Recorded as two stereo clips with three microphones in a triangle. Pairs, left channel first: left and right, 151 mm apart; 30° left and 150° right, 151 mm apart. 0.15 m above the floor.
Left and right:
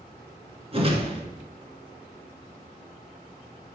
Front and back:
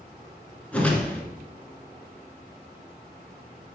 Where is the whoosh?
50° right, 1.7 m.